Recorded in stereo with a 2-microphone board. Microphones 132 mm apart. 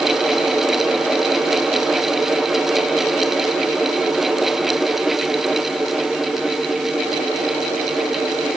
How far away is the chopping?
No chopping in this recording.